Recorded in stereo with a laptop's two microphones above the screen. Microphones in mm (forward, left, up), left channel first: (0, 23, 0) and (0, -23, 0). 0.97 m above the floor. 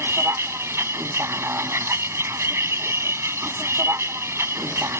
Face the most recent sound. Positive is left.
turn(degrees=-75)  # may be behind; listen again after turning